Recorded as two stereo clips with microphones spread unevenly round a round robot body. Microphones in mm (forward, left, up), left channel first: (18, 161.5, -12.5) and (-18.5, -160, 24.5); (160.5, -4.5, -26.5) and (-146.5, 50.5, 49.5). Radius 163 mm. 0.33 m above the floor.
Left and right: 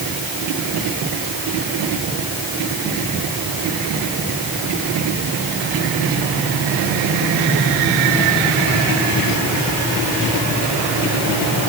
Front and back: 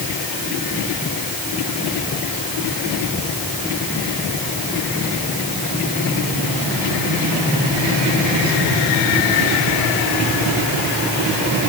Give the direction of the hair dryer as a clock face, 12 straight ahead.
No hair dryer in this recording.